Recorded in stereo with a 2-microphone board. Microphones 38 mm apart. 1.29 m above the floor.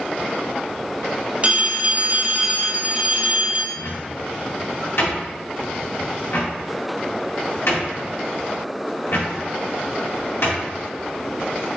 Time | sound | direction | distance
1.4 | a phone ringing | 35° right (ahead or behind) | 0.7 m
3.7 | a cupboard door | 85° left | 1.7 m